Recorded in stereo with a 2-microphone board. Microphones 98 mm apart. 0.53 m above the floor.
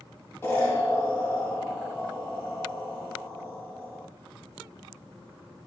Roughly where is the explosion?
Left.